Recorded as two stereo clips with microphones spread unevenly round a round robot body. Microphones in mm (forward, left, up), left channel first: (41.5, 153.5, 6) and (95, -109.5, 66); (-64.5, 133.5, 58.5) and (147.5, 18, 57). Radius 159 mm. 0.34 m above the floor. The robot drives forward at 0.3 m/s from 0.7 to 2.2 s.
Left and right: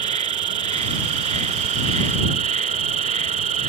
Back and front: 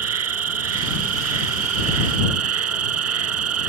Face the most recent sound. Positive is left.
turn(degrees=-15)